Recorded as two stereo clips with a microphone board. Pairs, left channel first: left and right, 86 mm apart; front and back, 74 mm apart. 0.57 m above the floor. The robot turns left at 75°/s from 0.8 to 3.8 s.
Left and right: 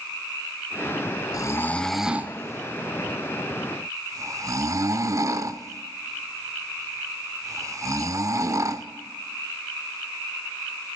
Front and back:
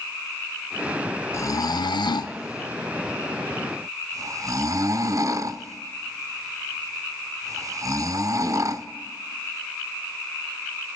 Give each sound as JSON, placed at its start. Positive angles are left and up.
{"t": 1.3, "sound": "snoring", "azimuth_deg": 45, "distance_m": 0.5}